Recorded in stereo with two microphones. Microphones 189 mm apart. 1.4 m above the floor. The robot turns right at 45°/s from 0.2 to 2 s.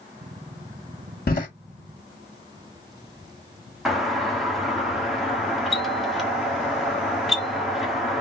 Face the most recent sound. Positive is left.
turn(degrees=0)  # may be behind; listen again after turning